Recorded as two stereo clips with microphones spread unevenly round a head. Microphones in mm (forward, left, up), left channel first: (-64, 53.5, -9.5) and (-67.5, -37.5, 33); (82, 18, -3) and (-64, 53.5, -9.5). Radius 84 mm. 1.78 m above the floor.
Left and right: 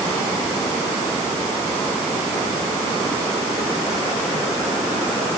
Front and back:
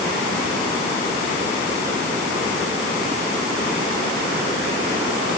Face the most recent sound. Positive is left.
No sound to turn to.